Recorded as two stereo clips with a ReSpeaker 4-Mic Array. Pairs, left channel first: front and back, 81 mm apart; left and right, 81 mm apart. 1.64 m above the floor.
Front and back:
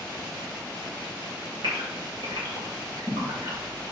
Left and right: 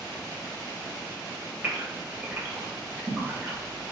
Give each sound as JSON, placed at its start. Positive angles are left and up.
{"t": 1.6, "sound": "a gasp", "azimuth_deg": -155, "distance_m": 3.5}